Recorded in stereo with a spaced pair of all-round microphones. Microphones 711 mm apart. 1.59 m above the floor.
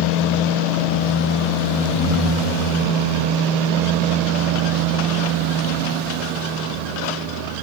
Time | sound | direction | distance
1.9 | breathing | 15° left (ahead or behind) | 4 m